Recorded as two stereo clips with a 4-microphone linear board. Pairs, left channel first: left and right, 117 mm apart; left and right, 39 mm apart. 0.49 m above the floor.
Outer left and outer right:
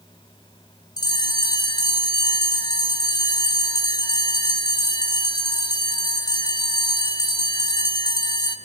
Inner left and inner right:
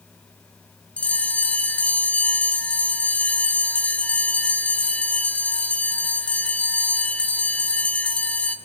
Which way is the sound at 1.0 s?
35° left (ahead or behind).